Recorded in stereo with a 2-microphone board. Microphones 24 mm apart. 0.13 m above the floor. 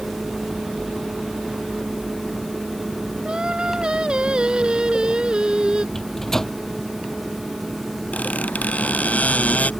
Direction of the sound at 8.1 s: 70° left (ahead or behind).